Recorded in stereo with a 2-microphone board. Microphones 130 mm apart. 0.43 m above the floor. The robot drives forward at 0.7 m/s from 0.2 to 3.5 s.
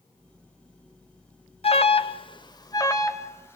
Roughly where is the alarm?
Left.